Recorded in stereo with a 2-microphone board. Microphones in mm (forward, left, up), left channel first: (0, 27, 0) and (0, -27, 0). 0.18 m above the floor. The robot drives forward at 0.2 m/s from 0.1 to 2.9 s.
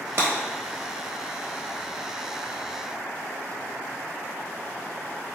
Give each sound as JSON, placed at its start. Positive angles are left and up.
{"t": 0.2, "sound": "breaking glass", "side_deg": -50, "distance_m": 1.1}